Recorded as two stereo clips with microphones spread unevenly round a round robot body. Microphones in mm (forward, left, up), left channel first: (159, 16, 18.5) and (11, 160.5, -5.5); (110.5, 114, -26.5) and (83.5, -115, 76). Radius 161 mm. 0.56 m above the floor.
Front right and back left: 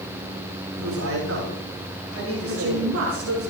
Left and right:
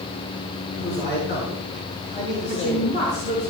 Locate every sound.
0.7 s a man speaking: 150° left, 7 m
2.5 s a woman speaking: 150° left, 5.5 m